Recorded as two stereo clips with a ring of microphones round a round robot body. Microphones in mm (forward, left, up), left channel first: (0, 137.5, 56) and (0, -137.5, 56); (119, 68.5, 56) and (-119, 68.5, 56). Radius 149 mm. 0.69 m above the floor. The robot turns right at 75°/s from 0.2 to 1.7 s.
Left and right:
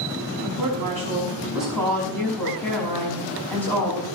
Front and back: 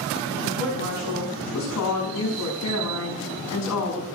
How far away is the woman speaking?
About 6 m.